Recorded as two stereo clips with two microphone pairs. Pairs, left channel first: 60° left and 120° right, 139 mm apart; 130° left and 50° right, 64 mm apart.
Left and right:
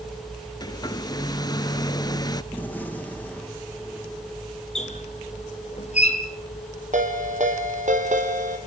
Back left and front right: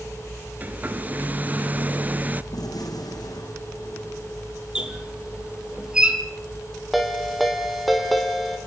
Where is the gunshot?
140° left, 4.5 m.